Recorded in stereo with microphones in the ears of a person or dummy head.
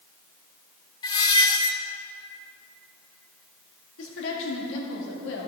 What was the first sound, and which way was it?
A squeak, 25° left (ahead or behind).